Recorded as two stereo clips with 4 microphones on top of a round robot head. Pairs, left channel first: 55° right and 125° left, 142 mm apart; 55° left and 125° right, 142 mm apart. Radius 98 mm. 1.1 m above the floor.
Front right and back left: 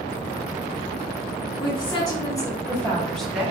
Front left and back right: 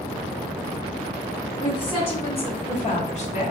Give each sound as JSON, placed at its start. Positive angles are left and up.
{"t": 1.6, "sound": "a woman speaking", "azimuth_deg": 0, "distance_m": 1.7}